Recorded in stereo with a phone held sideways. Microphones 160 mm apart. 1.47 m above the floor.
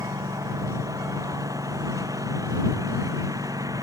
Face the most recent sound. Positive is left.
turn(degrees=-20)  # may be behind; listen again after turning